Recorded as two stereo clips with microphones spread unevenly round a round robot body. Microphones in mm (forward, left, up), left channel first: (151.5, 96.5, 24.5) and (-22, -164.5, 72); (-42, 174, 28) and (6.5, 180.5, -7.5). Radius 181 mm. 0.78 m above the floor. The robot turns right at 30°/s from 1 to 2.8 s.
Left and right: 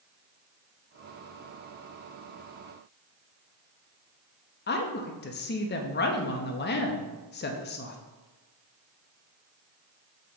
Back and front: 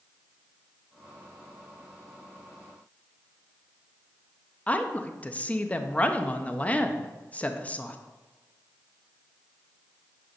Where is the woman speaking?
90° left, 0.7 m.